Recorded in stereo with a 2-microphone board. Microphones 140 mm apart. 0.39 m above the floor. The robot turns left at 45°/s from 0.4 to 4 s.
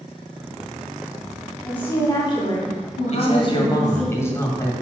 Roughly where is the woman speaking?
Behind.